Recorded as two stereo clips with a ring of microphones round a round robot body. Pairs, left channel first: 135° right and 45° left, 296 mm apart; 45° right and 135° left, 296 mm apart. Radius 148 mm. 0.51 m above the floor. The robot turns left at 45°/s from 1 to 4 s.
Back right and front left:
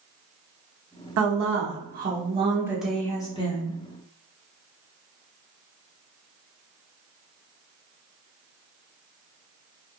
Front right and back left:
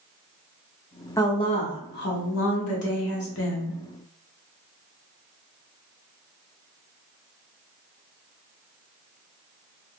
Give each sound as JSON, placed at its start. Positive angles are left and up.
{"t": 1.2, "sound": "a woman speaking", "azimuth_deg": 30, "distance_m": 0.8}